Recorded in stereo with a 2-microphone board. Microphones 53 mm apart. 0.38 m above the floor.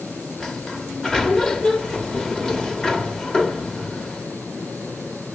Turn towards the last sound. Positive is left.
turn(degrees=10)  # may be behind; listen again after turning